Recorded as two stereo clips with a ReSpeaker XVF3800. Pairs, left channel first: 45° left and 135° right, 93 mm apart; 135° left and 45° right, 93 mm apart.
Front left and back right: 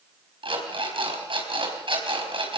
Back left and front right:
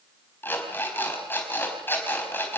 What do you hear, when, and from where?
0.4 s an alarm clock: 160° right, 5 m